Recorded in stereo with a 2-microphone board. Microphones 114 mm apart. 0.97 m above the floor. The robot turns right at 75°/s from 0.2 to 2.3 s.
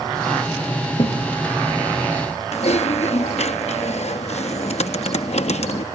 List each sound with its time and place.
1.0 s a thud: 60° left (ahead or behind); by 1.3 s 40° left (ahead or behind)
2.5 s typing on a keyboard: 70° left (ahead or behind)